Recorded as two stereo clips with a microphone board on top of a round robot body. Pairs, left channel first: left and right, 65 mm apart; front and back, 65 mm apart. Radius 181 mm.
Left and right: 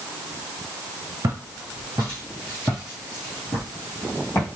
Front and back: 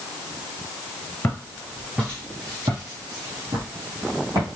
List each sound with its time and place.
1.2 s footsteps: 55° right, 0.8 m; by 4.5 s 145° left, 1.5 m